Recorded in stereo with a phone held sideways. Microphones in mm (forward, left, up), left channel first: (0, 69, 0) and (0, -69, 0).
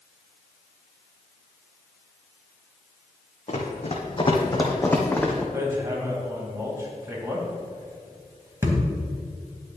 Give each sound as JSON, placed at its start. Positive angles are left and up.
{"t": 3.5, "sound": "running footsteps", "side_deg": 50, "distance_m": 1.9}
{"t": 5.5, "sound": "hammering", "side_deg": -25, "distance_m": 2.0}